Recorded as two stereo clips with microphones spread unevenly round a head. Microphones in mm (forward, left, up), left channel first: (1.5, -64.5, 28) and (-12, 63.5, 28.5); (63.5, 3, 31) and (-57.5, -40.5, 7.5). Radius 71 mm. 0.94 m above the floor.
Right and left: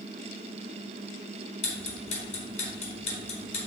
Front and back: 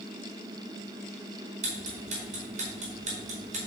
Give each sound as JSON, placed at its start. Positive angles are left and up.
{"t": 1.6, "sound": "ticking", "azimuth_deg": -125, "distance_m": 4.5}